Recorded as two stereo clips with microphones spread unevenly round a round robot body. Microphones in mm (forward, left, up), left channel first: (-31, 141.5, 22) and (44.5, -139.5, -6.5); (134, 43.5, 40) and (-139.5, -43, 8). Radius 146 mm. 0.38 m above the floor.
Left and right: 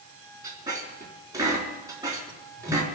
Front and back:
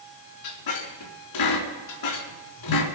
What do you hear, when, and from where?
0.4 s a squeak: 5° left, 4 m